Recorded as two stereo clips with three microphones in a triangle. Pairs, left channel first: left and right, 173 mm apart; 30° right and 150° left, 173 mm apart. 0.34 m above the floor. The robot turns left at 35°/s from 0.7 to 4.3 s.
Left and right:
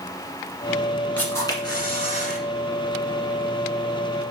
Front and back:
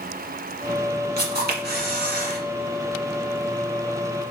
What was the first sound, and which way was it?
A camera shutter, 170° left.